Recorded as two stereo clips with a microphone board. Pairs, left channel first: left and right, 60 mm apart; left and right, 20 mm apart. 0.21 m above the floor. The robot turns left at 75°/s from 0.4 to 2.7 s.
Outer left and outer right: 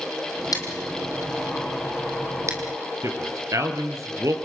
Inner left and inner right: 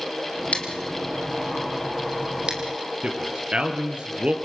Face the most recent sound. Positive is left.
turn(degrees=-65)  # may be behind; listen again after turning